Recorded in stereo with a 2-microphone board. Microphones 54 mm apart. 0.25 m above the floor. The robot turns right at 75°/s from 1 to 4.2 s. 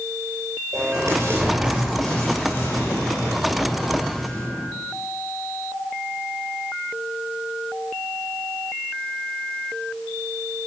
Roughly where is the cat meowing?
I don't hear a cat meowing.